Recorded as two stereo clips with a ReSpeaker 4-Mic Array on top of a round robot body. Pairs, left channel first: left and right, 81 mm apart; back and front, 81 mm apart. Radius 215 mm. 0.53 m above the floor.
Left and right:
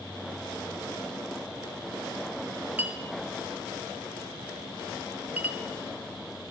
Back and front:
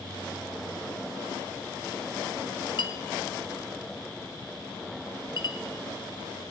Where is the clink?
155° right, 0.5 m.